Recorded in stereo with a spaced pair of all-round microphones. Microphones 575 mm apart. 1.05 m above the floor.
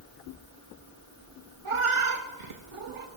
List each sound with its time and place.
1.6 s a cat meowing: 60° right (ahead or behind), 0.7 m